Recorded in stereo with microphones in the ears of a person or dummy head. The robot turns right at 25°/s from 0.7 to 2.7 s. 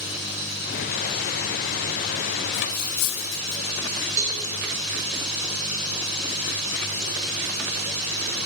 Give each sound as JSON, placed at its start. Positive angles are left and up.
{"t": 2.5, "sound": "cutlery clinking", "side_deg": 55, "distance_m": 1.0}
{"t": 4.2, "sound": "a cowbell", "side_deg": -70, "distance_m": 2.5}